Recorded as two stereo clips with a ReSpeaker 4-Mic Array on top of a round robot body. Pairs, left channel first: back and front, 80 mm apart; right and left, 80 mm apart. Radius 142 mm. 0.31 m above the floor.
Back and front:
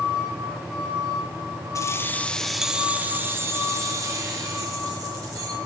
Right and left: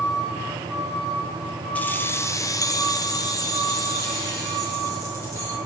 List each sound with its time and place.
1.8 s keys jangling: 155° right, 1.0 m; by 5.6 s 40° right, 3 m